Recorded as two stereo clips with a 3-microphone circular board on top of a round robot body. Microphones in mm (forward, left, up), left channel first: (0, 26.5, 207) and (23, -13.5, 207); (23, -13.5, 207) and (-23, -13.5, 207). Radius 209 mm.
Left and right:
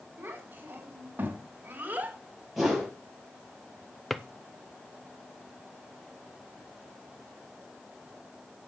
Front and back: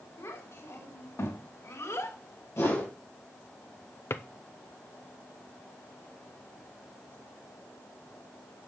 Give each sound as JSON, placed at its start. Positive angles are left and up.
{"t": 0.2, "sound": "a child speaking", "azimuth_deg": -10, "distance_m": 4.0}
{"t": 2.6, "sound": "a whoosh", "azimuth_deg": 30, "distance_m": 5.5}
{"t": 4.1, "sound": "a drawer", "azimuth_deg": 35, "distance_m": 0.6}